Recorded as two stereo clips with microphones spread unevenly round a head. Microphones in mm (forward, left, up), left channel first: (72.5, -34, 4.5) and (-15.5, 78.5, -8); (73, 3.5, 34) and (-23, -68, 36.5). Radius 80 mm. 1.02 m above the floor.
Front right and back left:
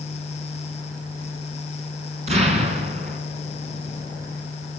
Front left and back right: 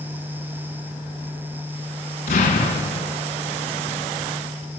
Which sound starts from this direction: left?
An explosion, at 2.3 s.